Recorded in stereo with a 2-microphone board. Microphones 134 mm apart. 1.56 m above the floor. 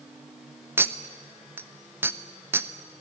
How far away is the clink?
About 0.8 m.